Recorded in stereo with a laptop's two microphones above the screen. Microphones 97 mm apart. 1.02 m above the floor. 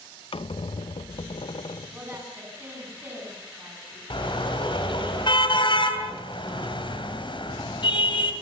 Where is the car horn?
60° left (ahead or behind), 2.5 m.